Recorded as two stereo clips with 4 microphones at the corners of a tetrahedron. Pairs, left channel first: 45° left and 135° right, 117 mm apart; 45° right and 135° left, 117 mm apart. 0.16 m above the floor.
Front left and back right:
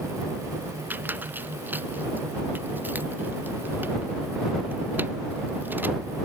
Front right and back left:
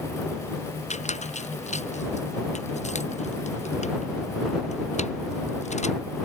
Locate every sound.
0.9 s a squeak: 60° right